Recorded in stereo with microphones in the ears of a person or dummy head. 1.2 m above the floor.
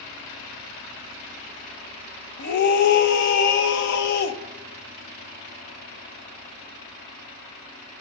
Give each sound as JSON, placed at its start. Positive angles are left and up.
{"t": 2.4, "sound": "a scream", "side_deg": 60, "distance_m": 1.0}